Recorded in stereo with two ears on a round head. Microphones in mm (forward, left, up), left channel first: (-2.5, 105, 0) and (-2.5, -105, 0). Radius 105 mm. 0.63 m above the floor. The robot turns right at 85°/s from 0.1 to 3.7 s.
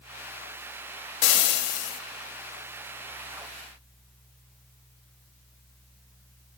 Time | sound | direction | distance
1.2 | frying | 90° left | 0.5 m